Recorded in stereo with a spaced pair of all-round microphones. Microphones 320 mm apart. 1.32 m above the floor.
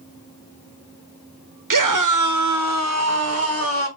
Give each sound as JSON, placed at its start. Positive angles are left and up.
{"t": 1.7, "sound": "a scream", "side_deg": -65, "distance_m": 0.8}